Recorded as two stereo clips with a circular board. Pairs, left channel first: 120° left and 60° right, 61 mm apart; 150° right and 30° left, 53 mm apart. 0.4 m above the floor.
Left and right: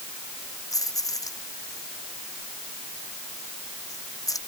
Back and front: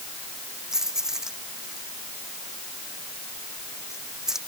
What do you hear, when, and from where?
0.7 s keys jangling: 110° left